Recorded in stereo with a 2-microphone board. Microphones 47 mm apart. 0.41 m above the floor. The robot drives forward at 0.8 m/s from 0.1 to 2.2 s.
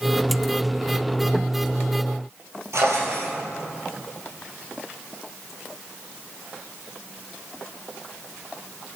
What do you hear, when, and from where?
2.7 s a drawer: 90° right, 3 m